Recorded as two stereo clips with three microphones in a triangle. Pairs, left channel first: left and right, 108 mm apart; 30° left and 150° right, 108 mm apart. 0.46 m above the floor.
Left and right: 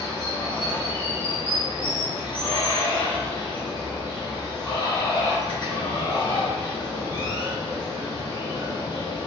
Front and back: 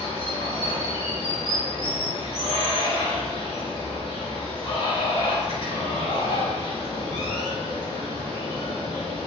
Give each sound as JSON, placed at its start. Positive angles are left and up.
{"t": 0.0, "sound": "running water", "azimuth_deg": 50, "distance_m": 0.9}